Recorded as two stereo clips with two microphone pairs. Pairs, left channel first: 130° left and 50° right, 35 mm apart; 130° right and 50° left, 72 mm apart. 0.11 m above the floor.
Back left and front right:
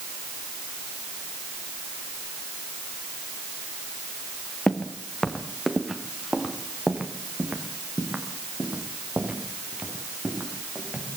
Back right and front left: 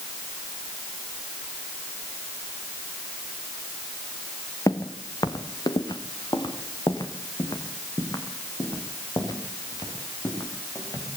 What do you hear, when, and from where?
4.7 s footsteps: 165° right, 2.5 m; by 11.1 s 95° right, 8.5 m